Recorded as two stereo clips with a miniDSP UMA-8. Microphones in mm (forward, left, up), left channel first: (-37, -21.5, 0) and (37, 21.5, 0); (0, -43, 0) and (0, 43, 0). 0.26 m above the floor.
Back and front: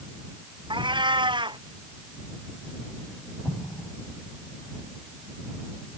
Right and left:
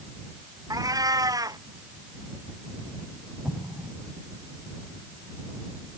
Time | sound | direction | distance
0.7 | a cat meowing | 50° left | ?
3.5 | an explosion | 155° left | ?